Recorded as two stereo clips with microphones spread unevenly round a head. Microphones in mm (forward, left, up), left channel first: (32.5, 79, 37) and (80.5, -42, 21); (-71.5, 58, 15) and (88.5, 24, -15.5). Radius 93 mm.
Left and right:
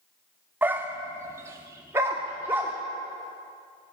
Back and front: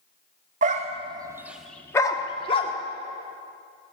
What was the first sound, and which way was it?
A dog barking, 10° left.